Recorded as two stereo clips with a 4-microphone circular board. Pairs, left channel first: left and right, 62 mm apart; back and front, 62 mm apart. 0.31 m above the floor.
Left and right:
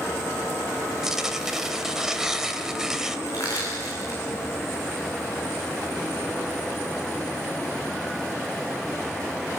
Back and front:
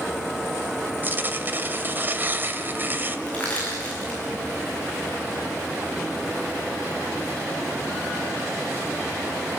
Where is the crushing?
110° left, 7 m.